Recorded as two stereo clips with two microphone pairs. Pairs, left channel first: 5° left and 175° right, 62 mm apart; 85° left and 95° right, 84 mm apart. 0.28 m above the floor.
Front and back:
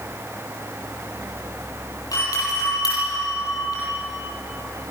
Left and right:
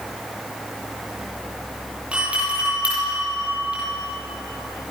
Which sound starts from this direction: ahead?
A doorbell, at 2.1 s.